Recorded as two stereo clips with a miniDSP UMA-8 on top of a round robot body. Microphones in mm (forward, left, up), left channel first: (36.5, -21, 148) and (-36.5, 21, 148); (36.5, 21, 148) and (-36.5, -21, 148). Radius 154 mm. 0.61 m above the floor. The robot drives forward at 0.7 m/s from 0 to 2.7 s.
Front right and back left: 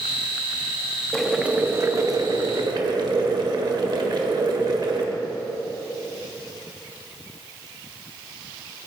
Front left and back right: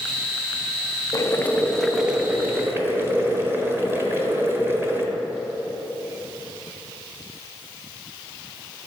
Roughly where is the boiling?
Ahead left.